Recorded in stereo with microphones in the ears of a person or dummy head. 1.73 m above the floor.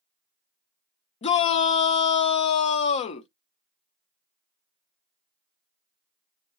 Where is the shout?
30° left (ahead or behind), 0.6 m.